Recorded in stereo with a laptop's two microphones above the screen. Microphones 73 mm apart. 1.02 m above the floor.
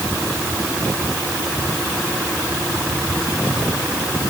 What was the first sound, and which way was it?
Only background noise.